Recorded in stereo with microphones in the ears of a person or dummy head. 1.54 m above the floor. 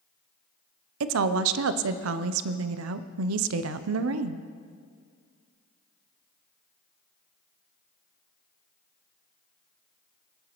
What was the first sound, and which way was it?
A woman speaking, 85° right.